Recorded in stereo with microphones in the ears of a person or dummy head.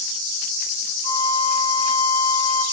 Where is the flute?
40° left (ahead or behind), 1.4 m.